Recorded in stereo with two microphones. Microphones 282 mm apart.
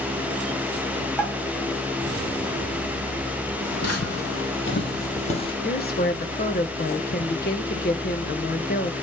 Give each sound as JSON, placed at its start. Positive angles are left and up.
{"t": 1.2, "sound": "a pop", "side_deg": -5, "distance_m": 5.0}
{"t": 3.6, "sound": "footsteps", "side_deg": 65, "distance_m": 3.0}
{"t": 5.6, "sound": "a woman speaking", "side_deg": 35, "distance_m": 1.2}